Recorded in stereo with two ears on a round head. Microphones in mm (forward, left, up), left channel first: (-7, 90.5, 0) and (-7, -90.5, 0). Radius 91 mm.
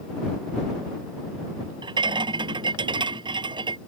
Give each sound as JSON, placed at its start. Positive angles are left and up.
{"t": 1.8, "sound": "a rattle", "side_deg": -25}